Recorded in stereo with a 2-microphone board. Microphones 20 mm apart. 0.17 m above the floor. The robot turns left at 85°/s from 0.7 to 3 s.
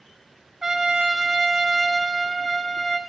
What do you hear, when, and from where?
0.6 s a trumpet: 25° right (ahead or behind), 0.7 m; by 3.0 s 25° left (ahead or behind), 0.7 m